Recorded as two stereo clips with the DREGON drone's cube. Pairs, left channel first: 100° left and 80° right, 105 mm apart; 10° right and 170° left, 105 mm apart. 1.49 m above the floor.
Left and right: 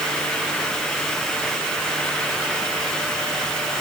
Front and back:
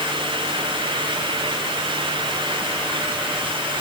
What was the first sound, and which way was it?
Only background noise.